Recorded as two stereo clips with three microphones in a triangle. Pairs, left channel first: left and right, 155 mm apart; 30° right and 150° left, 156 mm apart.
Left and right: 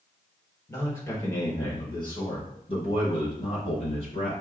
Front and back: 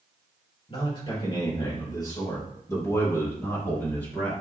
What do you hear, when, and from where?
0.7 s a man speaking: 15° left, 2.5 m; by 4.3 s 45° left, 4 m